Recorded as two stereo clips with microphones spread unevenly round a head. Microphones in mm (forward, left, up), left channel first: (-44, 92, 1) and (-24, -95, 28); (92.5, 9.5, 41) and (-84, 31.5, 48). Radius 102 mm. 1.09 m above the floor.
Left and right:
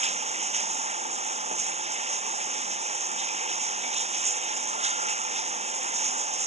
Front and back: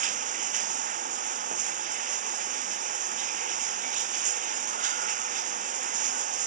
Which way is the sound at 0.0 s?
135° right.